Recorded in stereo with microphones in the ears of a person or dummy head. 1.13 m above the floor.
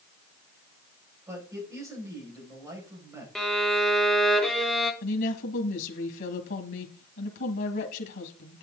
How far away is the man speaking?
About 5.5 m.